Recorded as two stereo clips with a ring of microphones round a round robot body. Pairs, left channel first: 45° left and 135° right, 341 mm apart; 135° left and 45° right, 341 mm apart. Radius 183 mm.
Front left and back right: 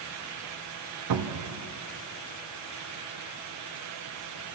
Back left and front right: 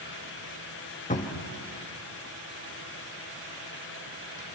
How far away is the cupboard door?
About 1.4 m.